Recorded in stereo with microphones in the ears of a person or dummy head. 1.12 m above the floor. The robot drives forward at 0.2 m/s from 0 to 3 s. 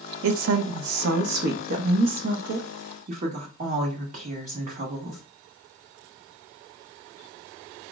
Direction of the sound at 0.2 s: 70° right (ahead or behind).